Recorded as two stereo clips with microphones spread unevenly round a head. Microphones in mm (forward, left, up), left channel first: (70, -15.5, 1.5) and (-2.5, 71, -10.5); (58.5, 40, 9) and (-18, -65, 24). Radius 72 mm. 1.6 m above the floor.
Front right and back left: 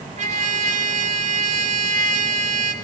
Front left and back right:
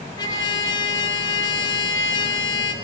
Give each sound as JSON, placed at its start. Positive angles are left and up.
{"t": 0.2, "sound": "a trumpet", "azimuth_deg": 120, "distance_m": 1.9}